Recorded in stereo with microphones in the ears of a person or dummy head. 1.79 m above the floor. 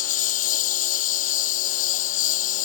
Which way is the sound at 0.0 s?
50° left (ahead or behind).